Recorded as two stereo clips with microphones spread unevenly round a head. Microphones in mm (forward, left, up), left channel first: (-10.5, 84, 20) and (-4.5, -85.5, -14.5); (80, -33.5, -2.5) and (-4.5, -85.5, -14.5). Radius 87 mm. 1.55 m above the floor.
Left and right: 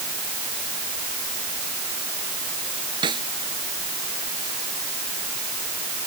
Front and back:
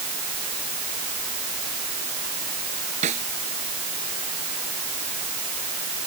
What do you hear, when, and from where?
3.0 s a snare drum: 155° right